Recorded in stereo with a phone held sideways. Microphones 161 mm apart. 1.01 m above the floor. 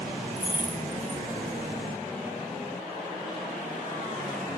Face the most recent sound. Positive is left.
turn(degrees=-15)  # may be behind; listen again after turning